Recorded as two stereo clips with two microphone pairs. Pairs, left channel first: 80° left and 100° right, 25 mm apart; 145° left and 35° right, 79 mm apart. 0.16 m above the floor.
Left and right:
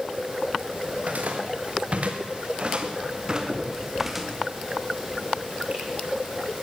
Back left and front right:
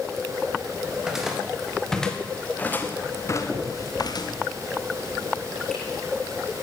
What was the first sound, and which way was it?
Footsteps, 115° right.